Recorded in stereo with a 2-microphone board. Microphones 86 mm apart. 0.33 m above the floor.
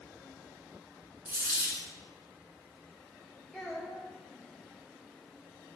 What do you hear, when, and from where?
1.2 s a dropped coin: 20° right (ahead or behind), 1.0 m
3.5 s a child speaking: 10° left (ahead or behind), 0.6 m